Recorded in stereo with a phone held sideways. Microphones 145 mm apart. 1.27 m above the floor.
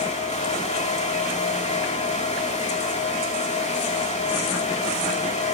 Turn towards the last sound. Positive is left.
turn(degrees=50)  # may be behind; listen again after turning